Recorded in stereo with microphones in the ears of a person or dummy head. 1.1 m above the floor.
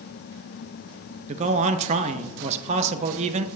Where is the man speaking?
35° right (ahead or behind), 0.7 m.